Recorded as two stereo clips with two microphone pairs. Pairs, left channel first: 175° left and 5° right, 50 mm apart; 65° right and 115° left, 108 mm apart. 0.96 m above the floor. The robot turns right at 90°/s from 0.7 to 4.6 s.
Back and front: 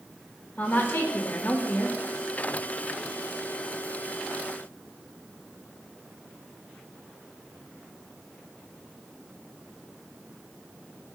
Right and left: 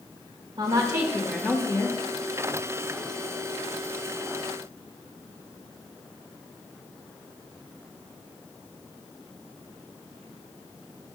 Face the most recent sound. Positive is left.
turn(degrees=135)